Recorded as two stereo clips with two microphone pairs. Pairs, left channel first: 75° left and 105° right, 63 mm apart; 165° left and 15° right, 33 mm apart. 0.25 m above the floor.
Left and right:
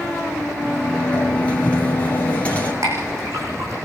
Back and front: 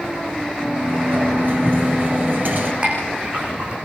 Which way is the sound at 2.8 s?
75° right.